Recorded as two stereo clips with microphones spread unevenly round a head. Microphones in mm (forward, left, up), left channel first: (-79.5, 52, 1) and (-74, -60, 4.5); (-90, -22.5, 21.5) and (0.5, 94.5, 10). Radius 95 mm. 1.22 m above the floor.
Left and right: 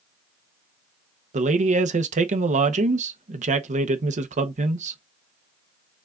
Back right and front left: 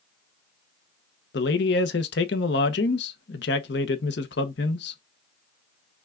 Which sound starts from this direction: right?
A man speaking, at 1.3 s.